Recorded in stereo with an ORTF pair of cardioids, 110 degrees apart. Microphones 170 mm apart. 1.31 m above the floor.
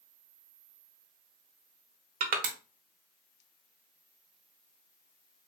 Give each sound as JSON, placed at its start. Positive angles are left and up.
{"t": 2.2, "sound": "crushing", "azimuth_deg": -60, "distance_m": 1.1}